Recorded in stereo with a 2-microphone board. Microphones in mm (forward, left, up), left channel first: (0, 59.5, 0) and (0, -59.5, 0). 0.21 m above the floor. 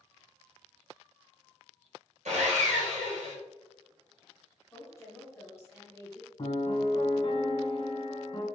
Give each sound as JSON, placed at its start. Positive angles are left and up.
{"t": 2.2, "sound": "sawing", "side_deg": -80, "distance_m": 1.6}
{"t": 4.7, "sound": "a woman speaking", "side_deg": 20, "distance_m": 1.3}
{"t": 6.4, "sound": "a piano", "side_deg": 40, "distance_m": 1.3}